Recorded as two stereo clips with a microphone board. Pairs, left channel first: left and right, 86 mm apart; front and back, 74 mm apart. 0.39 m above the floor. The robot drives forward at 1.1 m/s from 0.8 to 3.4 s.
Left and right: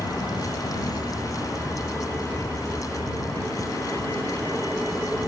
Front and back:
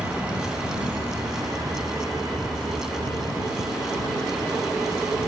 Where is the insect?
110° left; by 5.3 s 160° left.